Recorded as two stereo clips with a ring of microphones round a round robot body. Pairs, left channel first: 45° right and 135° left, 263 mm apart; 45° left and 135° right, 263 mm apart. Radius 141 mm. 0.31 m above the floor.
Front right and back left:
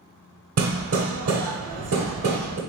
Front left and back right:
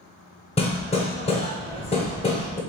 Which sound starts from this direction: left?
Hammering, at 0.6 s.